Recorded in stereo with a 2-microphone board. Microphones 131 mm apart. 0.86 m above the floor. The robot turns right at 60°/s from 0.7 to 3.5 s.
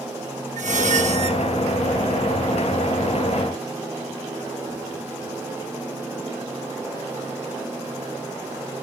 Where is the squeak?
95° right, 1.0 m; by 1.4 s 55° right, 1.0 m.